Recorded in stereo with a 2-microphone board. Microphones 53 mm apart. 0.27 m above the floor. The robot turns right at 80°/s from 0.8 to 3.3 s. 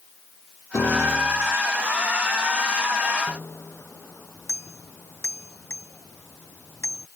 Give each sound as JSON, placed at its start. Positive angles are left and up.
{"t": 0.7, "sound": "a piano", "azimuth_deg": 85}
{"t": 3.3, "sound": "a bicycle bell", "side_deg": 60}